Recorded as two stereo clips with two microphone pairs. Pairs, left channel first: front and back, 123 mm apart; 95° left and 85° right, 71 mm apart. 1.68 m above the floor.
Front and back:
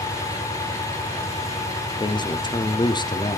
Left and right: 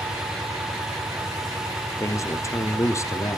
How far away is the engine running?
About 8 m.